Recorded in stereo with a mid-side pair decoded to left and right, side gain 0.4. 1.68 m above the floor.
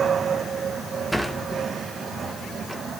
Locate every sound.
1.1 s a sliding door: 5° right, 1.5 m